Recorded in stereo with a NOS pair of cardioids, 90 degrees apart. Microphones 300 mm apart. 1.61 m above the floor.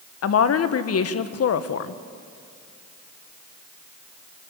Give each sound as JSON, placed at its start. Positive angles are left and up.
{"t": 0.2, "sound": "a woman speaking", "azimuth_deg": 55, "distance_m": 1.8}